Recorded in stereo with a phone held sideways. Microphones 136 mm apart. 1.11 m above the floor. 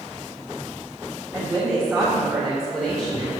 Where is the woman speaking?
Centre (ahead or behind), 3.5 m.